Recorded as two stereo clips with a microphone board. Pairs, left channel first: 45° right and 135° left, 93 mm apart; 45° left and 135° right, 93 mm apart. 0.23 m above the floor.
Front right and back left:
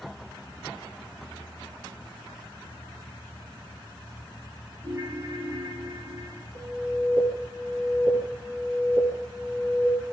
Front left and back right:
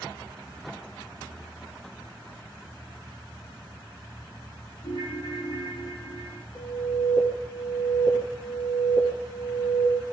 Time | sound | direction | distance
4.8 | a ringtone | 80° left | 6.5 m
6.5 | an alarm | 100° left | 8 m